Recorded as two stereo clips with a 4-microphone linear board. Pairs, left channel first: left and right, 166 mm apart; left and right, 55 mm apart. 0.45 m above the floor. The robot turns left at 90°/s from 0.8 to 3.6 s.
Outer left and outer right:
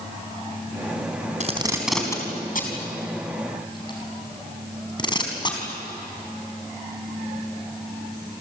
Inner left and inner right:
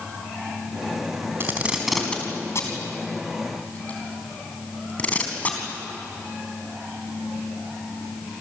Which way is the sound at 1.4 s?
45° right (ahead or behind).